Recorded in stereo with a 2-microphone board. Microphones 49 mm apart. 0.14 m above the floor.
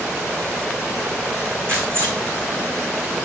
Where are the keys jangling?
45° right (ahead or behind), 6.5 m.